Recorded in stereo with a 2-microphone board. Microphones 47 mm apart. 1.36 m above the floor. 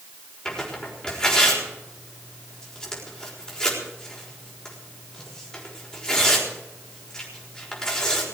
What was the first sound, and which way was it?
Tearing paper, 15° left (ahead or behind).